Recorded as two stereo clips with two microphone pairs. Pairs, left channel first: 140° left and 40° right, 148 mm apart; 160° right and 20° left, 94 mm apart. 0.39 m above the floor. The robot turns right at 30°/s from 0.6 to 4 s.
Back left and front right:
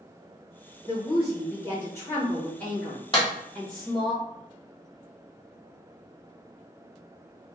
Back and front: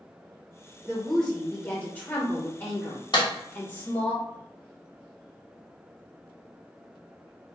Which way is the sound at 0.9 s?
135° left.